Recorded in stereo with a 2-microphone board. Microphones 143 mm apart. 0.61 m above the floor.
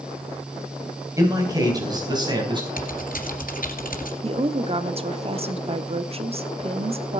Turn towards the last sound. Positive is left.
turn(degrees=-45)  # may be behind; listen again after turning